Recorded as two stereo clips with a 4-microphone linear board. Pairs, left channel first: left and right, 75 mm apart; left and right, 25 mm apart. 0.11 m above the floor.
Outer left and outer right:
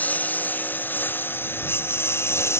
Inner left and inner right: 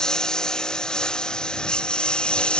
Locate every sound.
0.0 s a lawn mower: 25° left (ahead or behind); by 2.6 s 35° left (ahead or behind)